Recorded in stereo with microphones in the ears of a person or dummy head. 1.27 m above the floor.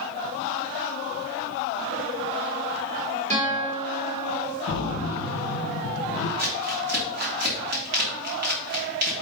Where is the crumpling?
55° right (ahead or behind), 2 m.